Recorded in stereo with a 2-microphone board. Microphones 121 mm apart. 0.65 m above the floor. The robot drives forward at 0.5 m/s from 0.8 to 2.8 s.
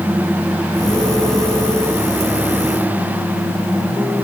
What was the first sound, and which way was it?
Only background noise.